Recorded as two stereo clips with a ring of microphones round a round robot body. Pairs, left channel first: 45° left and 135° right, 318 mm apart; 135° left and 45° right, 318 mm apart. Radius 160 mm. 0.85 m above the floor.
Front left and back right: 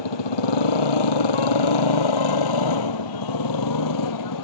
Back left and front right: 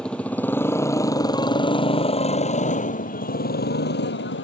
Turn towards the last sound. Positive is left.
turn(degrees=80)